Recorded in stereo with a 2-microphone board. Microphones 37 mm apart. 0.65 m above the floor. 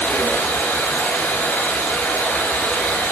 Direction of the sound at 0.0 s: 75° left (ahead or behind).